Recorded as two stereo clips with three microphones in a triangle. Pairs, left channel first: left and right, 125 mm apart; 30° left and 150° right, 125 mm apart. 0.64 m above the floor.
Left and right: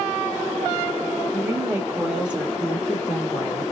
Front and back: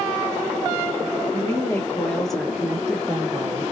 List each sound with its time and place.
1.3 s a woman speaking: 25° right, 1.5 m; by 3.6 s 160° left, 1.5 m